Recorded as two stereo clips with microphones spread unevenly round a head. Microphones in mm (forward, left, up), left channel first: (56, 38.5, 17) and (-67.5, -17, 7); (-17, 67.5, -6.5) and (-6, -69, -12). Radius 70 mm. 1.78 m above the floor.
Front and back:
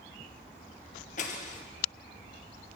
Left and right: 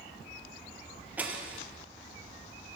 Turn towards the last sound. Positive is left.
turn(degrees=-5)